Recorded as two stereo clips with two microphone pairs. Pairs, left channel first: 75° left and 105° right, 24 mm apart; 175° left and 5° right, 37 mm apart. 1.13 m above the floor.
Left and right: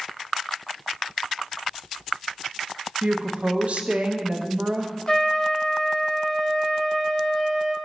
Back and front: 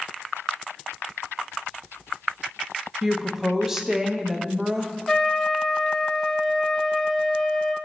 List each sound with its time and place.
3.0 s a woman speaking: 80° right, 0.8 m
5.1 s a trumpet: 100° left, 0.8 m